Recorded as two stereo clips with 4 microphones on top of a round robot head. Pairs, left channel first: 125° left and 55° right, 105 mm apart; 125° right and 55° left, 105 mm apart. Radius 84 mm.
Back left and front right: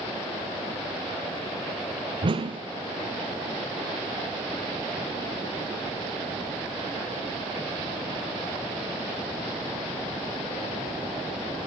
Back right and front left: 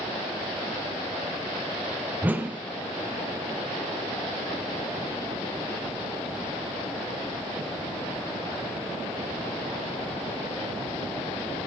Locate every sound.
2.2 s a whoosh: 20° right, 1.4 m